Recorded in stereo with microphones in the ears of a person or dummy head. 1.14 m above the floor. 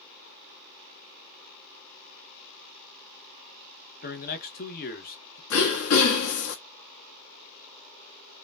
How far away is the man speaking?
About 1.0 m.